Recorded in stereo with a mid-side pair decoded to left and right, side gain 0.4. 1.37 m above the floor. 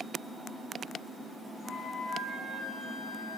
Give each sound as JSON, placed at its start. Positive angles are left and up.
{"t": 1.6, "sound": "a flute", "azimuth_deg": 55, "distance_m": 2.5}